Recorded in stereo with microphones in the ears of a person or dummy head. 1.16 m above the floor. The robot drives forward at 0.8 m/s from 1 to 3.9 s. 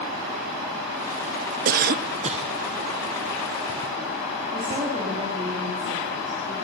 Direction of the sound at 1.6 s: 45° right (ahead or behind).